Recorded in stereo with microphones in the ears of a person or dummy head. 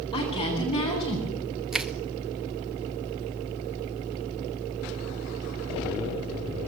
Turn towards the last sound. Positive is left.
turn(degrees=-5)  # may be behind; listen again after turning